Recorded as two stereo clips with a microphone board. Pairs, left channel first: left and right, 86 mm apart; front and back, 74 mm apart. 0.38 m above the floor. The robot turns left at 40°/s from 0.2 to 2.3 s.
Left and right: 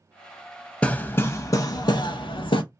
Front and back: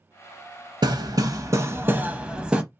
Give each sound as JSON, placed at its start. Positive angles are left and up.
{"t": 0.8, "sound": "hammering", "azimuth_deg": 165, "distance_m": 0.5}